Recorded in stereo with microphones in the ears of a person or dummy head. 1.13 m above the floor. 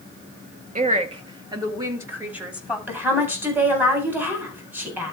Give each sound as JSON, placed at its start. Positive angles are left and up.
{"t": 0.8, "sound": "a woman speaking", "side_deg": -30, "distance_m": 1.6}
{"t": 2.9, "sound": "a woman speaking", "side_deg": -10, "distance_m": 3.5}